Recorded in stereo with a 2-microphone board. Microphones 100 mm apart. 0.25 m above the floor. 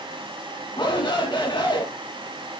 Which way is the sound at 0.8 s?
55° left (ahead or behind).